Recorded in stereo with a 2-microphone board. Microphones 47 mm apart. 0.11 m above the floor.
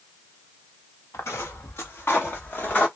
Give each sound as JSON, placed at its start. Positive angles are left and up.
{"t": 1.1, "sound": "footsteps", "side_deg": 80, "distance_m": 1.3}